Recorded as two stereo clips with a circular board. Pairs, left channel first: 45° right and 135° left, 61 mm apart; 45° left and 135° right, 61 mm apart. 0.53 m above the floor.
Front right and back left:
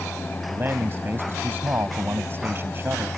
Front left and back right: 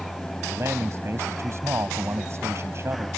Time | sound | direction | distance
0.5 | a man speaking | 175° right | ?